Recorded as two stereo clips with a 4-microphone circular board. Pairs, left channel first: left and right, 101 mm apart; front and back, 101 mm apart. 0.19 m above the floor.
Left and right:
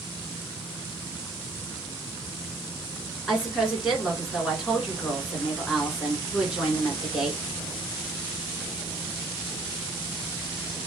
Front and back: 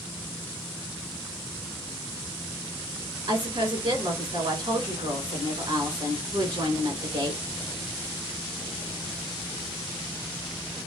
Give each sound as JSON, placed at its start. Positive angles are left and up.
{"t": 3.3, "sound": "a woman speaking", "azimuth_deg": -175, "distance_m": 2.0}